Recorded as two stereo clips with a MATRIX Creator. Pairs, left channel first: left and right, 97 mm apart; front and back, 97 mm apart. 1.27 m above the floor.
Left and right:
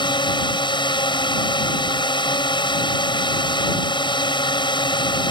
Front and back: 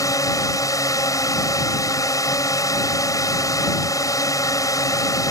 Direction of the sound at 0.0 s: 55° left.